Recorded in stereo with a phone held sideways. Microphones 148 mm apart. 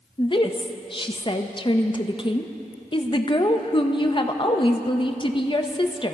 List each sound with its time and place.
0.2 s a woman speaking: 35° left (ahead or behind), 0.8 m